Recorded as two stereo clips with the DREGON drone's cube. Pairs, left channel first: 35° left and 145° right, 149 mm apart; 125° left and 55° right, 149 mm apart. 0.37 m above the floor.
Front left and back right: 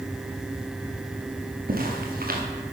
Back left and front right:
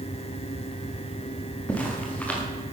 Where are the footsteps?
155° right, 4 m.